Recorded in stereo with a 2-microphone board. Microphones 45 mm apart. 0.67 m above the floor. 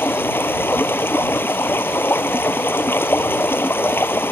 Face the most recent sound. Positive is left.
turn(degrees=55)  # may be behind; listen again after turning